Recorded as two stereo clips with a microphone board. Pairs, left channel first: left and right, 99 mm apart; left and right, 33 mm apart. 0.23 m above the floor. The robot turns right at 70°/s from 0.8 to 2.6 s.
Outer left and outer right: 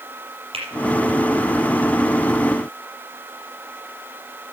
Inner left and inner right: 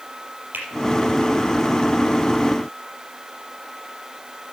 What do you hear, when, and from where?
0.5 s a finger snap: 75° right (ahead or behind), 4.5 m